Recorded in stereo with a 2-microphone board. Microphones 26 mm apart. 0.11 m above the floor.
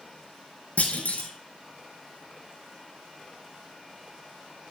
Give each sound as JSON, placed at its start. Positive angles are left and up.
{"t": 0.8, "sound": "a clunk", "side_deg": 70, "distance_m": 1.2}